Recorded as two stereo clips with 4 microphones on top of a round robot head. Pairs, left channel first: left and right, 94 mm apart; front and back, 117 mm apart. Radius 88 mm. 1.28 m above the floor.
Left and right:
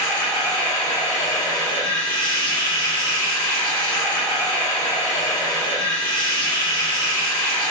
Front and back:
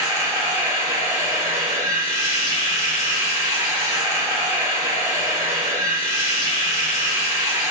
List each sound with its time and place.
0.0 s running water: 160° left, 0.8 m